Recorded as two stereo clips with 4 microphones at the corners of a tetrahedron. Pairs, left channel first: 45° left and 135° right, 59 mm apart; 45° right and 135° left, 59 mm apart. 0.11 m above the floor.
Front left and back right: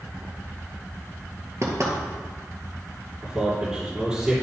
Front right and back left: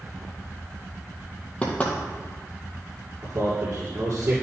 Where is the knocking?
110° right, 1.9 m.